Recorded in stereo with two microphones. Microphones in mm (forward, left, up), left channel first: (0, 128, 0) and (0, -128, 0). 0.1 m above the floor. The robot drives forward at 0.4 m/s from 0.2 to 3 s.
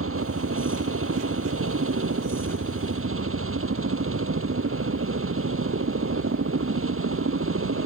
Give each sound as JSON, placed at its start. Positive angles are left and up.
{"t": 0.0, "sound": "a helicopter", "side_deg": -55}